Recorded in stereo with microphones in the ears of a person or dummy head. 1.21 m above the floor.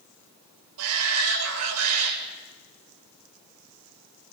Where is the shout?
85° right, 5.5 m.